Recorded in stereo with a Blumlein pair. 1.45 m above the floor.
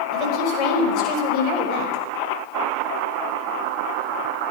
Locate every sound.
0.1 s a woman speaking: 35° left, 5.5 m; by 2.0 s 45° left, 5 m